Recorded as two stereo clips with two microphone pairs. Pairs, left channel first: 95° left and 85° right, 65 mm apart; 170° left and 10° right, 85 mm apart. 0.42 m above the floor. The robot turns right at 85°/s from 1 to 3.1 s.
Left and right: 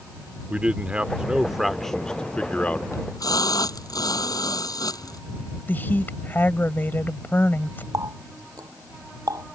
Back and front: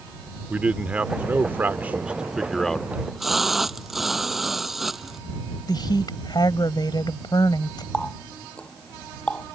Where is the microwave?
No microwave in this recording.